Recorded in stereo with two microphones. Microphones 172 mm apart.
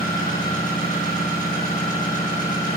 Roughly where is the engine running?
Left.